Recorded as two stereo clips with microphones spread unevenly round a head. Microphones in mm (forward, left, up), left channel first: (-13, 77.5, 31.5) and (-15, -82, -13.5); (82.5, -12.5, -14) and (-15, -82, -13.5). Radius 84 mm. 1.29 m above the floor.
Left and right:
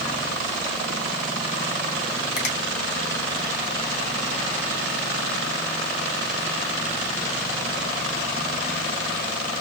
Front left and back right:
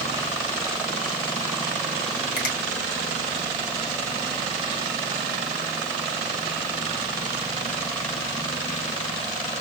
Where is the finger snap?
45° left, 2 m.